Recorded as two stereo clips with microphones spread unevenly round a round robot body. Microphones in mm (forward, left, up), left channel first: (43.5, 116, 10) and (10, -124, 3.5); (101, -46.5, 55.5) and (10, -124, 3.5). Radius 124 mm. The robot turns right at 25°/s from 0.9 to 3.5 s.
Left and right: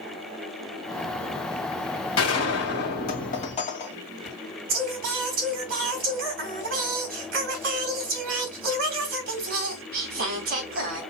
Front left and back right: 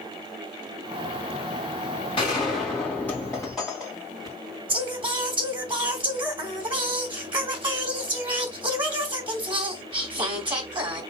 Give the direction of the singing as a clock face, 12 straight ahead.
5 o'clock.